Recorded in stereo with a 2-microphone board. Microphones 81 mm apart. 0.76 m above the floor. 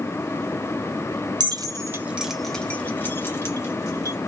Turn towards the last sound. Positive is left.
turn(degrees=40)  # may be behind; listen again after turning